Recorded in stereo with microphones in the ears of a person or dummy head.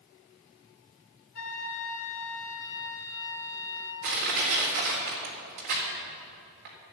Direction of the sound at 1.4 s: 40° left (ahead or behind).